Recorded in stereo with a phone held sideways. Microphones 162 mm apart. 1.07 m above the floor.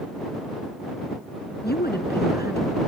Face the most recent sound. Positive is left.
turn(degrees=80)